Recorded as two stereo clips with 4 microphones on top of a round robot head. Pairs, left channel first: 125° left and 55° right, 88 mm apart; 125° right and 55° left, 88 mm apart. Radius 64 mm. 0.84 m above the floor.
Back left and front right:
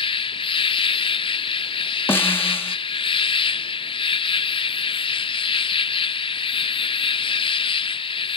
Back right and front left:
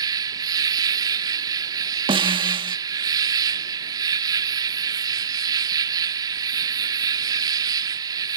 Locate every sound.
0.0 s an insect: 100° left
2.1 s a snare drum: 65° left